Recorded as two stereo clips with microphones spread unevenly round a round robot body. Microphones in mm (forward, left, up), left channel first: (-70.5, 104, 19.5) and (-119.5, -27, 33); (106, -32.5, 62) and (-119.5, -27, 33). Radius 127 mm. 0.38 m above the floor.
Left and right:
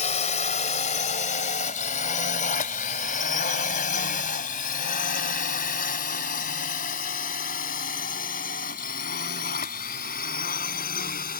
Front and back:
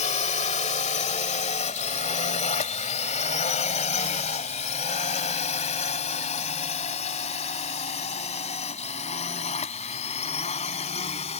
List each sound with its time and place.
0.0 s a drone: 55° left; by 11.4 s 65° left